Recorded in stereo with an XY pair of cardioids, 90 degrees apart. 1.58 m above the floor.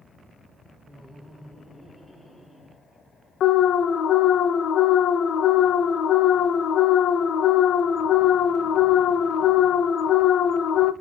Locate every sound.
0.9 s laughter: 5° right, 1.3 m; by 2.8 s 20° left, 3 m
3.4 s an alarm: 65° left, 0.5 m